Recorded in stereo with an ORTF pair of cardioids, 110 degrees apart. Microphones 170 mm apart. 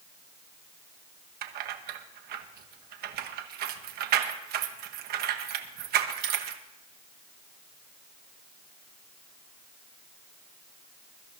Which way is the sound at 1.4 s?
70° right.